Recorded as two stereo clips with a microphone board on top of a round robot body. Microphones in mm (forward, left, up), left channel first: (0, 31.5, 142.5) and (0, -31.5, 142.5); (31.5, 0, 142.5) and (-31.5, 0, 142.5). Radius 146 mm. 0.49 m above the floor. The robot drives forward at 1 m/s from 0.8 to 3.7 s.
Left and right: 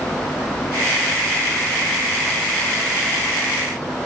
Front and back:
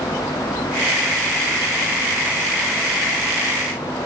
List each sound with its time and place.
Only background noise.